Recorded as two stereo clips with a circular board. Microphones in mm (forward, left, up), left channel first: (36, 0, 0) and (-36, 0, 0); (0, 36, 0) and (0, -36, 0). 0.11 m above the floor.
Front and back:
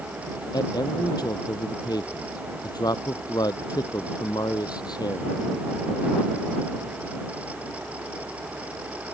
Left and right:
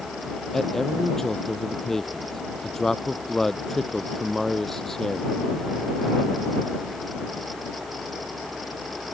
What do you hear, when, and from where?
0.5 s a man speaking: 5° left